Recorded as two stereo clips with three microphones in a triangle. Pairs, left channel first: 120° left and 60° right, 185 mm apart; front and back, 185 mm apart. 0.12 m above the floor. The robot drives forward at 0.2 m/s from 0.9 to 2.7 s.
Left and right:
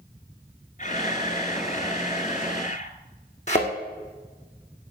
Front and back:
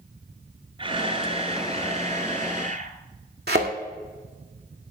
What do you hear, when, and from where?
0.8 s a camera shutter: 135° left, 0.9 m; by 3.0 s 150° left, 1.1 m
3.5 s a thud: 165° left, 2.5 m